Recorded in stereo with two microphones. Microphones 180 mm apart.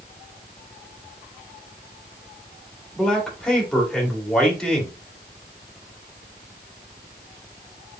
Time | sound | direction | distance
3.0 | a man speaking | 5° left (ahead or behind) | 2 m